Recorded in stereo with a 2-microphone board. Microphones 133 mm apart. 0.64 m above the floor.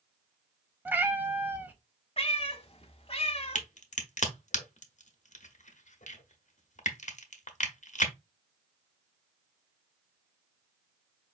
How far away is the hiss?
No hiss in this recording.